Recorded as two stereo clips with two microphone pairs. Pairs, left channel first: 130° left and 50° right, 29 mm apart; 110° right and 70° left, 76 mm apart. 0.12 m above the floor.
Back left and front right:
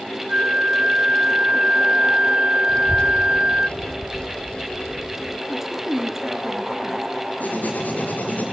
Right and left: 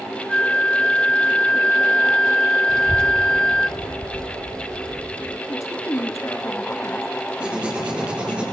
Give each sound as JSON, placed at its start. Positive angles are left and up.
{"t": 0.3, "sound": "a flute", "azimuth_deg": -40, "distance_m": 0.5}
{"t": 2.7, "sound": "a child speaking", "azimuth_deg": 170, "distance_m": 1.4}
{"t": 5.5, "sound": "a woman speaking", "azimuth_deg": -130, "distance_m": 2.0}
{"t": 7.4, "sound": "writing", "azimuth_deg": 145, "distance_m": 5.5}